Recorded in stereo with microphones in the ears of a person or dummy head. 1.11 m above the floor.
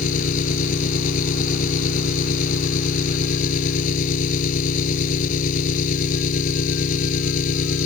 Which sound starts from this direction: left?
An engine running, at 0.0 s.